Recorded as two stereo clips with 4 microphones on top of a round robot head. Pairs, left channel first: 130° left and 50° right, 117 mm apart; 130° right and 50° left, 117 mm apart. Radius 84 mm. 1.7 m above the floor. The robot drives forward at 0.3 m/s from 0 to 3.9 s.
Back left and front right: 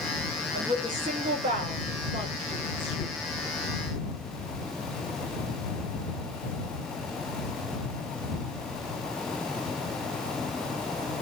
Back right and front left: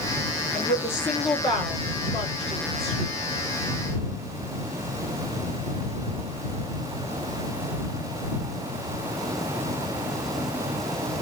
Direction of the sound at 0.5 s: 85° right.